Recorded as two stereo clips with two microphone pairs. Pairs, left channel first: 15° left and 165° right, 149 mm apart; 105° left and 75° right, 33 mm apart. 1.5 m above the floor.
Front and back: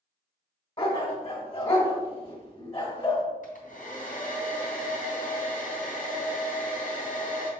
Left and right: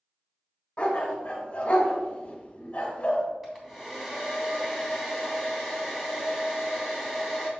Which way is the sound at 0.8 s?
55° left.